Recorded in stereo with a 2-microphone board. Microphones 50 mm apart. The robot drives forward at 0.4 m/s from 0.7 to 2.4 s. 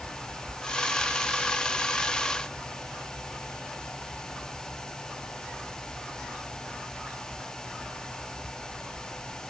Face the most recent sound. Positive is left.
No sound to turn to.